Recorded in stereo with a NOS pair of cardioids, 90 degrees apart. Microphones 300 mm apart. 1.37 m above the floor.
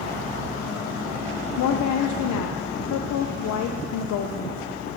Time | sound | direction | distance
1.6 | a woman speaking | 70° left | 0.7 m